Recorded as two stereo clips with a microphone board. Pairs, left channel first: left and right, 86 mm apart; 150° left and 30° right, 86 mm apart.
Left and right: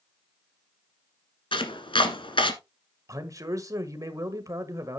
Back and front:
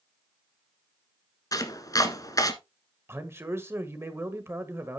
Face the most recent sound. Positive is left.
turn(degrees=-75)